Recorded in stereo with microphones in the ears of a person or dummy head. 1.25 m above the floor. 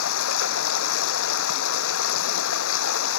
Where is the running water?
80° left.